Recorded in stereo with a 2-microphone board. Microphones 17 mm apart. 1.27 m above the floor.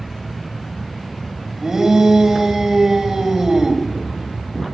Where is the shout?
25° right (ahead or behind), 2 m.